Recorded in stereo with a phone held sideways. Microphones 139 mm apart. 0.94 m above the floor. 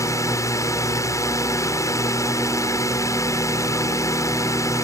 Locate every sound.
0.0 s a drone: 20° left (ahead or behind)